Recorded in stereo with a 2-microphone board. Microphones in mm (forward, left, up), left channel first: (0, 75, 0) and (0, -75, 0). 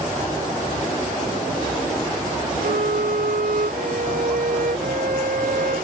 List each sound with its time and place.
2.6 s a violin: 70° right (ahead or behind)